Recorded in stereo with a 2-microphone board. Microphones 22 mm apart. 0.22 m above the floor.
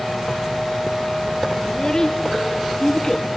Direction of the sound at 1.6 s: 30° left (ahead or behind).